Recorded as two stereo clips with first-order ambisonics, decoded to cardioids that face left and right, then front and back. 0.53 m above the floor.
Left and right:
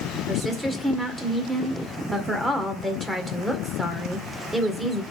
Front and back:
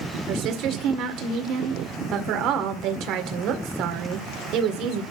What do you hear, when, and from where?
0.3 s a woman speaking: straight behind, 1.8 m